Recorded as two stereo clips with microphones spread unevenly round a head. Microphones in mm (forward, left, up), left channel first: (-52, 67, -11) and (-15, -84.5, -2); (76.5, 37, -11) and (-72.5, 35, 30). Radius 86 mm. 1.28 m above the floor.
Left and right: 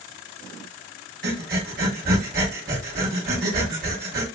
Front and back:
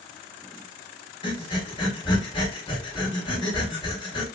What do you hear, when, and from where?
1.2 s breathing: 70° right, 1.1 m